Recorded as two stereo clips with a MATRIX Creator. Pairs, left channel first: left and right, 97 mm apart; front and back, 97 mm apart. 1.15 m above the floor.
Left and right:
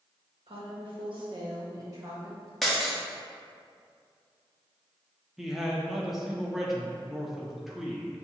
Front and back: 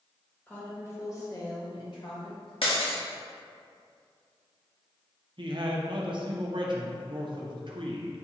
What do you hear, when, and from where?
0.5 s a woman speaking: 70° right, 1.5 m; by 2.5 s 25° right, 1.7 m
2.6 s breaking glass: straight ahead, 1.0 m
5.4 s a man speaking: straight behind, 0.6 m